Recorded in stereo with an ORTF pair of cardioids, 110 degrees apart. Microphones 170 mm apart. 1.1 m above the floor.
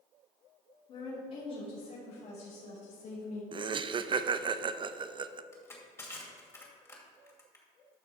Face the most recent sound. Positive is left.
turn(degrees=15)